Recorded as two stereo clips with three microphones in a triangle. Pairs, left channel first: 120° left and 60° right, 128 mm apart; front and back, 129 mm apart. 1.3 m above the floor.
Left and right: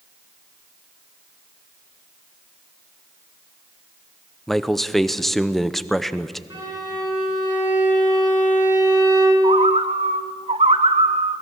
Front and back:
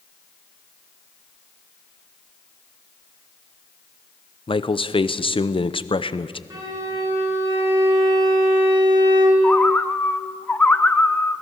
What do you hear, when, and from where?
4.5 s a man speaking: 30° left, 0.7 m
6.5 s a violin: 120° right, 8 m
9.4 s a bird: 75° right, 0.9 m